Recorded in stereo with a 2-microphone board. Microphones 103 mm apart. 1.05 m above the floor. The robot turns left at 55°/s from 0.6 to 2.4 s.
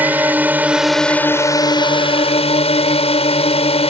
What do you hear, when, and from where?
0.0 s a drone: 165° right; by 3.9 s 95° left